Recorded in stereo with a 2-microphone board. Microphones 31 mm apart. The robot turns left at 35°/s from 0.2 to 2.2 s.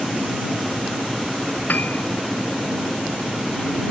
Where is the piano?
85° left; by 2.0 s 70° left (ahead or behind).